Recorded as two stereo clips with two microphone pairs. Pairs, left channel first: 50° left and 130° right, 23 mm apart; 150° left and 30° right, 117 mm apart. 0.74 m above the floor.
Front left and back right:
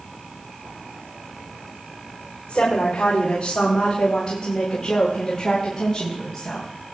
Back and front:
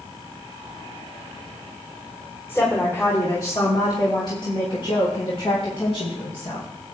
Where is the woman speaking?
85° left, 3 m; by 6.7 s 125° left, 4.5 m.